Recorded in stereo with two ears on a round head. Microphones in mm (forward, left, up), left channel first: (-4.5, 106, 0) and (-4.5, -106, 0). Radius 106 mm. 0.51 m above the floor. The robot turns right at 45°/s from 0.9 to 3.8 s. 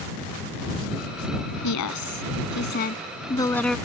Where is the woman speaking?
85° left; by 3.8 s straight behind.